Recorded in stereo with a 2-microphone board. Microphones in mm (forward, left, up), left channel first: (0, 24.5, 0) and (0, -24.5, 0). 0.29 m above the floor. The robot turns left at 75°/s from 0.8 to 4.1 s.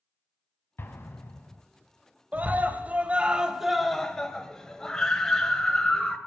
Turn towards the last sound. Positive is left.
turn(degrees=160)